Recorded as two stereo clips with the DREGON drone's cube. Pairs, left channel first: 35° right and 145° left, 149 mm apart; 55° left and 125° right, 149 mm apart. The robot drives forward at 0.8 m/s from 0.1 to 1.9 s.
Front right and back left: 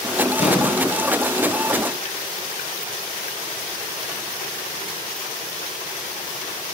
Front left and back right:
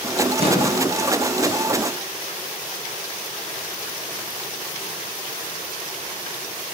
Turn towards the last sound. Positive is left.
turn(degrees=-85)